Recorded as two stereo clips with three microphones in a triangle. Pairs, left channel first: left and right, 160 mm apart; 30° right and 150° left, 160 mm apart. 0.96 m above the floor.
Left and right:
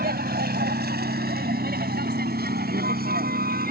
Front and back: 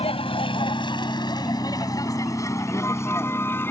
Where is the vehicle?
85° right; by 3.7 s 105° right.